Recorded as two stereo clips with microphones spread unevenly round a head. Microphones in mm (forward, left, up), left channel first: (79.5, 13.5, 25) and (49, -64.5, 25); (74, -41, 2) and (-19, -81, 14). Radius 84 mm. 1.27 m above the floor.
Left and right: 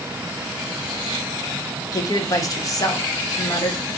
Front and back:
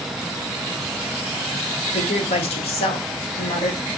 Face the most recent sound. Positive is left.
turn(degrees=25)